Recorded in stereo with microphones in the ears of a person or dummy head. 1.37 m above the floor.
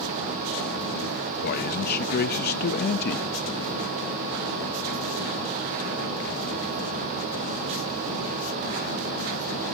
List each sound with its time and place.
1.4 s a man speaking: 50° left (ahead or behind), 1.0 m